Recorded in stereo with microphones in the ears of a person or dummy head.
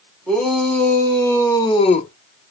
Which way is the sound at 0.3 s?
Centre (ahead or behind).